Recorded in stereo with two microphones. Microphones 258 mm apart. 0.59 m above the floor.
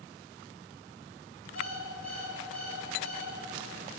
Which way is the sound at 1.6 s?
80° left.